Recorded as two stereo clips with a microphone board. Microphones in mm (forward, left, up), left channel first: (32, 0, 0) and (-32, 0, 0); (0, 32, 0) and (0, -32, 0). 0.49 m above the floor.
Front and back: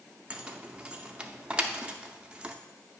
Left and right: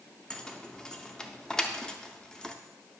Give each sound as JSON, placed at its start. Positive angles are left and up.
{"t": 0.3, "sound": "keys jangling", "azimuth_deg": 150, "distance_m": 0.5}